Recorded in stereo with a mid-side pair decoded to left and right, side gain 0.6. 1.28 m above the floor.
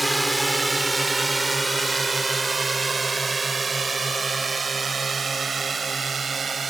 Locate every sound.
0.0 s a drone: 5° right; by 6.7 s 25° right